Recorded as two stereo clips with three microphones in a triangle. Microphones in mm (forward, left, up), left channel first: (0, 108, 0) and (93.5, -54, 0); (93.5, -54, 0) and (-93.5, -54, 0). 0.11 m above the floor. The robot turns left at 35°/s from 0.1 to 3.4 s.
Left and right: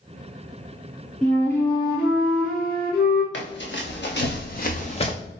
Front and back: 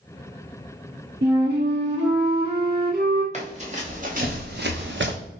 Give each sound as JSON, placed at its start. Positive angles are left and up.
{"t": 1.2, "sound": "a flute", "azimuth_deg": -155, "distance_m": 1.2}
{"t": 3.3, "sound": "running footsteps", "azimuth_deg": 130, "distance_m": 1.3}